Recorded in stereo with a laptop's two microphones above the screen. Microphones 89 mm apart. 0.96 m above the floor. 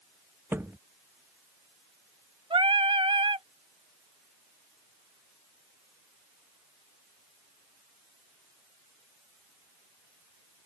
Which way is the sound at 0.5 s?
25° right (ahead or behind).